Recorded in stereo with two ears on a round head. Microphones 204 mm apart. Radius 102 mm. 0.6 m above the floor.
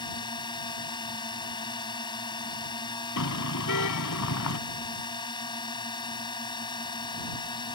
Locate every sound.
0.0 s a drone: 20° left (ahead or behind)
3.2 s a car horn: 80° left